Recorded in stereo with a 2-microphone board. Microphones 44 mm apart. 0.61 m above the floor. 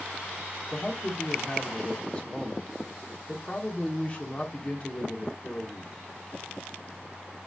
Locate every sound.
0.7 s a man speaking: 25° left (ahead or behind), 1.2 m